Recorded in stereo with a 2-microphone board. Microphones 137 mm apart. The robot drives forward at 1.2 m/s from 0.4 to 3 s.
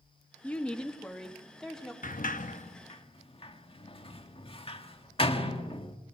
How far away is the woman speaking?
About 0.8 m.